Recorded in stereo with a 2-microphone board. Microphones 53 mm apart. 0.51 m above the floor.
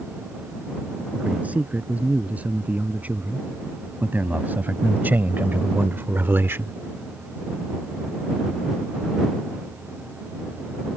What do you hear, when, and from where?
1.1 s a man speaking: 30° right (ahead or behind); by 6.8 s 45° right (ahead or behind)